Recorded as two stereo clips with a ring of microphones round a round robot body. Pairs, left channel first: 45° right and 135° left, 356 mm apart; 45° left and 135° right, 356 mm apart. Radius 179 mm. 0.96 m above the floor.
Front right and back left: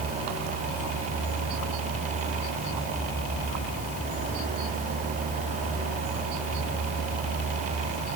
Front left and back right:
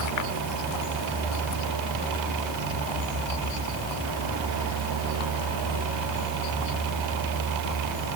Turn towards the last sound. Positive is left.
No sound to turn to.